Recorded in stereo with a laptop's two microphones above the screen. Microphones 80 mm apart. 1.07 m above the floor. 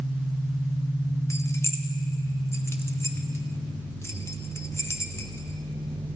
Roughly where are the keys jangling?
Left.